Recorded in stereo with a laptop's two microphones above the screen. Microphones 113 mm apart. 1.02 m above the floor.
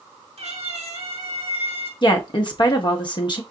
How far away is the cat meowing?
About 1.4 m.